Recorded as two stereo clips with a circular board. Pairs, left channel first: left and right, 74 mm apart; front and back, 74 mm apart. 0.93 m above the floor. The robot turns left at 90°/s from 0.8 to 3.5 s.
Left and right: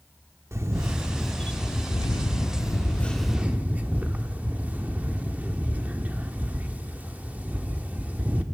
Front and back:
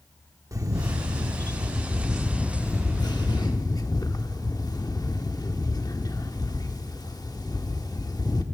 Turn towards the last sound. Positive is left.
turn(degrees=-25)